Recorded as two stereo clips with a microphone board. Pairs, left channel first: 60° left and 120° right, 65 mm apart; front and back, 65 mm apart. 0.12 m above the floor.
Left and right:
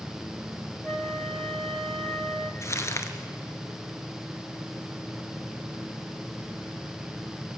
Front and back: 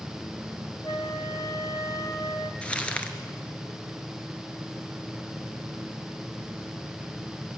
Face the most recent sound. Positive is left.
turn(degrees=65)